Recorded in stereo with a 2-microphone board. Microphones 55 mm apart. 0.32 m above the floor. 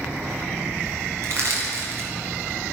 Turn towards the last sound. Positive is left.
turn(degrees=-55)  # may be behind; listen again after turning